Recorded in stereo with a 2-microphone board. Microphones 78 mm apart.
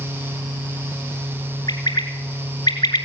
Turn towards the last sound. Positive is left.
turn(degrees=65)  # may be behind; listen again after turning